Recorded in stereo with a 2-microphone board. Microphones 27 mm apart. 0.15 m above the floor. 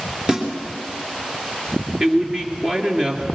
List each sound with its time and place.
0.3 s a snare drum: 30° right (ahead or behind), 3 m
2.0 s a man speaking: 35° right (ahead or behind), 2.5 m